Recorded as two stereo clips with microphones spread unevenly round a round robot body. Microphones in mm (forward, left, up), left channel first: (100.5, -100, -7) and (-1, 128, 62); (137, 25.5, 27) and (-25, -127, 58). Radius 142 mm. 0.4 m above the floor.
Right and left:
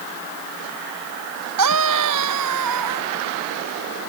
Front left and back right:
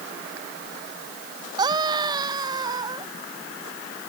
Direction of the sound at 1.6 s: 150° left.